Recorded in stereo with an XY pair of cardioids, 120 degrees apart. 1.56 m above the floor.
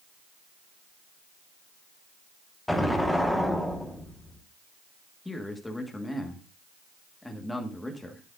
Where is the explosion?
5° left, 1.6 m.